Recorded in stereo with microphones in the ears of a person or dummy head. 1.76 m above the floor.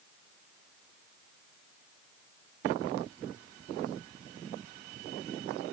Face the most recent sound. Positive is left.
No sound to turn to.